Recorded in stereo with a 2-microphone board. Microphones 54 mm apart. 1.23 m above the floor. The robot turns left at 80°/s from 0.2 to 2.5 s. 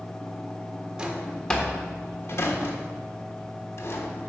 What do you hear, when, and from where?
1.0 s a drawer: 15° right (ahead or behind), 1.2 m; by 4.3 s 55° left (ahead or behind), 1.2 m